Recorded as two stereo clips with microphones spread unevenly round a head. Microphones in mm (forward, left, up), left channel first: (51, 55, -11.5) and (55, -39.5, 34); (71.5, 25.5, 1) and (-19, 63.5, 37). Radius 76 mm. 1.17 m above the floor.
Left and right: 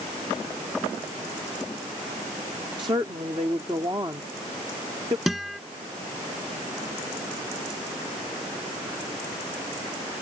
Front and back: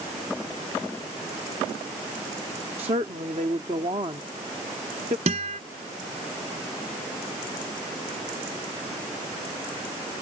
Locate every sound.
2.8 s a woman speaking: 150° right
5.3 s a guitar: 170° right